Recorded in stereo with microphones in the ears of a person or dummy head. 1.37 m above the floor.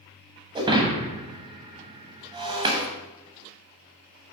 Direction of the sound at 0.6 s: 20° right (ahead or behind).